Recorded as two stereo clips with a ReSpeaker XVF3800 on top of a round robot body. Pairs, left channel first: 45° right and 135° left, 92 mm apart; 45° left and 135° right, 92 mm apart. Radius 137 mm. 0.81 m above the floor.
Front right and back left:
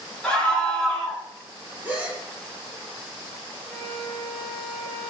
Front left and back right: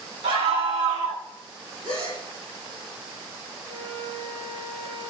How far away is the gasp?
About 7.5 m.